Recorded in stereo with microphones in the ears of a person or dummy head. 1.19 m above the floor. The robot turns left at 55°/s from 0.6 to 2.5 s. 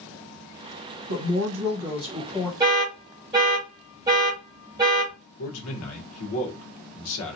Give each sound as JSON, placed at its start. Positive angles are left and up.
{"t": 1.1, "sound": "a woman speaking", "azimuth_deg": -110, "distance_m": 1.1}
{"t": 2.6, "sound": "an alarm", "side_deg": -20, "distance_m": 0.9}
{"t": 5.4, "sound": "a man speaking", "side_deg": 75, "distance_m": 1.2}